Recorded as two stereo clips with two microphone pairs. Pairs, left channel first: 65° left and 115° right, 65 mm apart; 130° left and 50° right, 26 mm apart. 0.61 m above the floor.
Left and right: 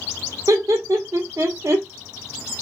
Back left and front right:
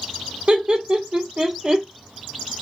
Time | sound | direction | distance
0.5 | laughter | 95° right | 1.4 m